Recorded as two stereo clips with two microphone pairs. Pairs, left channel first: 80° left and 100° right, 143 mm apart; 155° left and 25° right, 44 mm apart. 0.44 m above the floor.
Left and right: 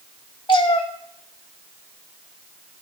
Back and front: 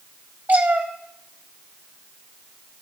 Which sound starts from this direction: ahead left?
A cat meowing, at 0.5 s.